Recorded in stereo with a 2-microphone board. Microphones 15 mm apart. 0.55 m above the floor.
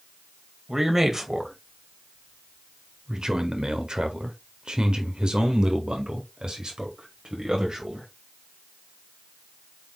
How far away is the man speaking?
About 2.5 m.